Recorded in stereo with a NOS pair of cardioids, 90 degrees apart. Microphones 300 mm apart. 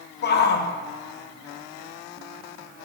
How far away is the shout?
About 1.7 m.